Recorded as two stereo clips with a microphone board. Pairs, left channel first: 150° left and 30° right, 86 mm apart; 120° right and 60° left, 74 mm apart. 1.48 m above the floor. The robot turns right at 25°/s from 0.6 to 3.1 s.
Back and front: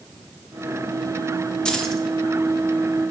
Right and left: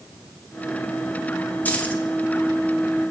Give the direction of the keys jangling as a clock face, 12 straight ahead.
5 o'clock.